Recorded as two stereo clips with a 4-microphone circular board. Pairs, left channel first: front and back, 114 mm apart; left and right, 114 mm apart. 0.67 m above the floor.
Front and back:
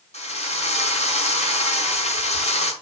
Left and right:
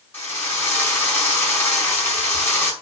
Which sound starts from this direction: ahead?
A drill, at 0.1 s.